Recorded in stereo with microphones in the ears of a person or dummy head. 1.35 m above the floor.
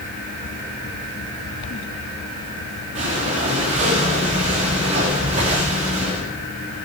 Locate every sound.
3.0 s breathing: 40° right (ahead or behind), 2.5 m